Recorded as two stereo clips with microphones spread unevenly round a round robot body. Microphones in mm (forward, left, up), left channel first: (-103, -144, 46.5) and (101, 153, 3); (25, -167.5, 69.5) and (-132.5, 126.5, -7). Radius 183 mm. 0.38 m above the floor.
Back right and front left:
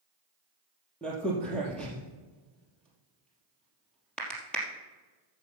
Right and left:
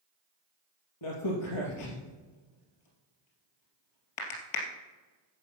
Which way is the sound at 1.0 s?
40° right.